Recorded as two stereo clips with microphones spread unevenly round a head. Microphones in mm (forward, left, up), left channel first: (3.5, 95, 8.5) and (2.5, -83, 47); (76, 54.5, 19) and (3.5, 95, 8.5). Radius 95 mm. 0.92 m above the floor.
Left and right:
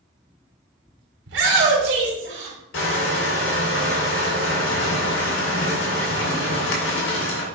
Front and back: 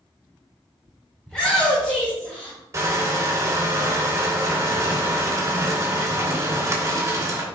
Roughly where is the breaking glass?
I don't hear breaking glass.